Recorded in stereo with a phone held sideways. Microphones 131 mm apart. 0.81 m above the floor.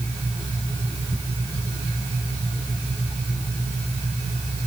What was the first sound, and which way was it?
Only background noise.